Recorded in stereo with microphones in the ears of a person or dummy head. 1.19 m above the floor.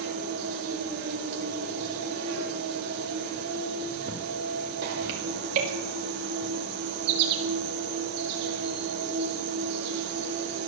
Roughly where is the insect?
Right.